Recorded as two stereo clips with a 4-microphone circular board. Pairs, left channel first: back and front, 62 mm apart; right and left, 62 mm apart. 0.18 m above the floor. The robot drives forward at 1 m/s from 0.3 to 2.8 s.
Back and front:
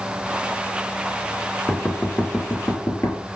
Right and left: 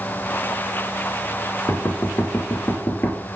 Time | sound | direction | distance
1.7 | knocking | 115° right | 1.8 m